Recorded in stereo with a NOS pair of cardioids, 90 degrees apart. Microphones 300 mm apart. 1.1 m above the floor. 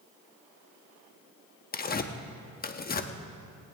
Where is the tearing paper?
30° left, 1.0 m.